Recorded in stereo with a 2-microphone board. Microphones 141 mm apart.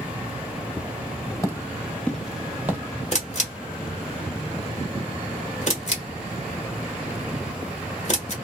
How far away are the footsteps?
About 1.4 m.